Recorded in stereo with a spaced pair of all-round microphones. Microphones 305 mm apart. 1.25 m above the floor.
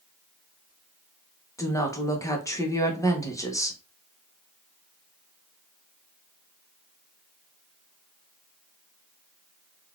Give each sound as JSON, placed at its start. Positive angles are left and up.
{"t": 1.6, "sound": "a woman speaking", "side_deg": 10, "distance_m": 0.9}